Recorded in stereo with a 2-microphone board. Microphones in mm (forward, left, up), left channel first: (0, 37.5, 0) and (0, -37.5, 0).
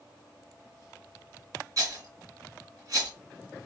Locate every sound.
1.8 s a rattle: 50° right (ahead or behind), 3 m